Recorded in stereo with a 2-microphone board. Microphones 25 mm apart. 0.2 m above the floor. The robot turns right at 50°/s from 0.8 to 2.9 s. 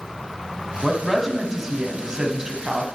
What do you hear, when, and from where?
0.8 s a woman speaking: 5° left (ahead or behind), 1.3 m; by 2.9 s 30° right (ahead or behind), 1.3 m